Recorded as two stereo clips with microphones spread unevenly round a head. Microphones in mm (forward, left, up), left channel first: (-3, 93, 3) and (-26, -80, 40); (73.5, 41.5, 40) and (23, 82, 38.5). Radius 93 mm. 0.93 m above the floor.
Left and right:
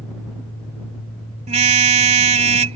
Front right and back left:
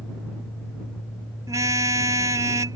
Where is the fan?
20° left.